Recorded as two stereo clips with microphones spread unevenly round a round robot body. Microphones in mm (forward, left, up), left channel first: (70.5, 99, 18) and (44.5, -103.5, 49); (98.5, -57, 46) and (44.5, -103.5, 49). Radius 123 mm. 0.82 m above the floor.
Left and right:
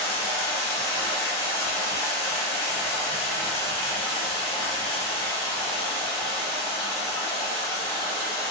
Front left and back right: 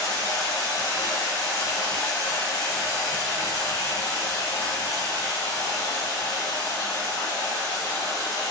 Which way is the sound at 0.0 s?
10° left.